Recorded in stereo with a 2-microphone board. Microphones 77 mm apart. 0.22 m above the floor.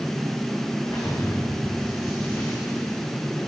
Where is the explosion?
45° left (ahead or behind), 7 m.